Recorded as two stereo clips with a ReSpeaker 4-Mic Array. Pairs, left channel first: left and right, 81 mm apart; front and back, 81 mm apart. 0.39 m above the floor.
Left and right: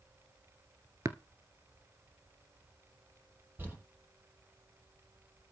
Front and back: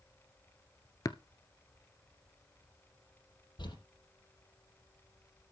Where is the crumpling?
25° right, 8 m.